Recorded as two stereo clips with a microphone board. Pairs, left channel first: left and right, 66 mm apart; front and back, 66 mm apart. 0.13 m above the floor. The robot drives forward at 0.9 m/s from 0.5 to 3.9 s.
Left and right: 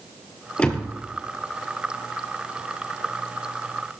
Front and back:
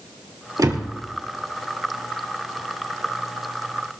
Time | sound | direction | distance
0.6 | a door slam | 160° left | 1.9 m